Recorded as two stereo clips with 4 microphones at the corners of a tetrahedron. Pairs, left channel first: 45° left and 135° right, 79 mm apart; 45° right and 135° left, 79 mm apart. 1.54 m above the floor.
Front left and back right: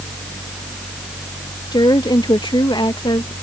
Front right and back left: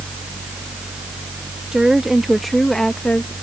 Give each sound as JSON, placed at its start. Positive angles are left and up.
{"t": 1.7, "sound": "a woman speaking", "azimuth_deg": 55}